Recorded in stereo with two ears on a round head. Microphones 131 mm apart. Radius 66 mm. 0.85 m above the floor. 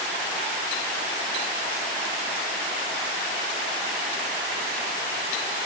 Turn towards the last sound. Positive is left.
No sound to turn to.